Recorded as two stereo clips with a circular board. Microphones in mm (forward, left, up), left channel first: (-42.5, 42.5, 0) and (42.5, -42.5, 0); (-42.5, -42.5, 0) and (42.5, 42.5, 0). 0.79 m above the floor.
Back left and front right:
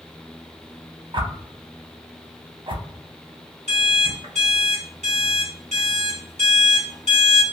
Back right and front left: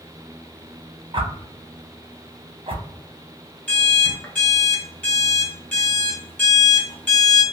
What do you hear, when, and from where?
1.1 s a whoosh: straight ahead, 0.7 m
3.7 s an alarm clock: 60° right, 1.7 m